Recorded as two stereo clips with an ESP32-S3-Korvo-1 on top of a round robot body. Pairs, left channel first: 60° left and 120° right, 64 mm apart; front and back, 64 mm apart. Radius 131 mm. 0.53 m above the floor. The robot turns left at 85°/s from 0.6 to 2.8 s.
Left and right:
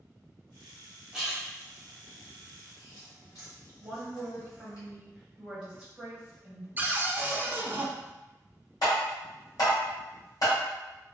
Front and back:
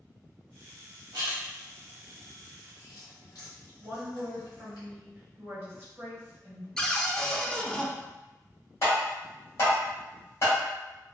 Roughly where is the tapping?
Ahead left.